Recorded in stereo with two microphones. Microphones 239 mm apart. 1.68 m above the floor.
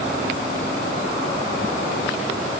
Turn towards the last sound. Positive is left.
No sound to turn to.